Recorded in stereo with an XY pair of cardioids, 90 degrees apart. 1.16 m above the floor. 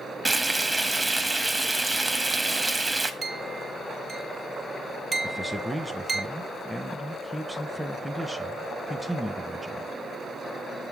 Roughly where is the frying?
Ahead.